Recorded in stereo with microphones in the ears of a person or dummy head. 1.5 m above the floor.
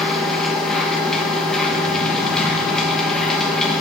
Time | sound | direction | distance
0.0 | a machine running | 5° left (ahead or behind) | 1.2 m